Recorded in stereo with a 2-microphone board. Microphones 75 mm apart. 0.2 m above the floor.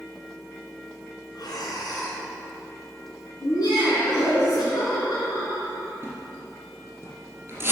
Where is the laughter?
55° left (ahead or behind), 3 m.